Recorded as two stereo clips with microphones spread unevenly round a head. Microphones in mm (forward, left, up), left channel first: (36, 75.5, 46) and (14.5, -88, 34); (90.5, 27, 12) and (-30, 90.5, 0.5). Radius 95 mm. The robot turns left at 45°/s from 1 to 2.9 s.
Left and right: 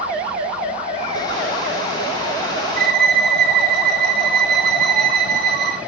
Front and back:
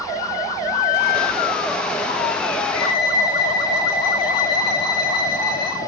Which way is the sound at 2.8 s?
65° right.